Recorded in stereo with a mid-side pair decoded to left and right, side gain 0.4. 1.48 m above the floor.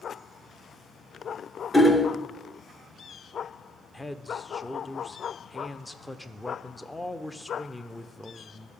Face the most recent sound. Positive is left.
turn(degrees=10)